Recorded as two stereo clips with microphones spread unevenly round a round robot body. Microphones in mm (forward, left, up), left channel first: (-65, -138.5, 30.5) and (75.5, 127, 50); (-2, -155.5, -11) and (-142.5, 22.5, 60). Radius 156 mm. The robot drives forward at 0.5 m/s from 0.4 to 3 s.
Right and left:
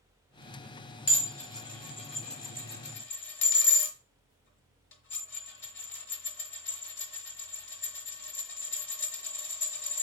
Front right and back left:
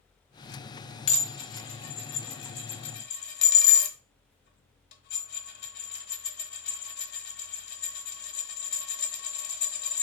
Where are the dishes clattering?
35° right, 1.7 m; by 10.0 s 70° right, 1.1 m.